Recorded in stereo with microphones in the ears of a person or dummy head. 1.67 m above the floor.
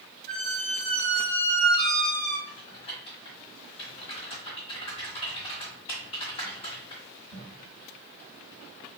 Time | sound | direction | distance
0.3 | a squeak | 25° left (ahead or behind) | 2 m
2.5 | typing on a keyboard | 20° left (ahead or behind) | 1.6 m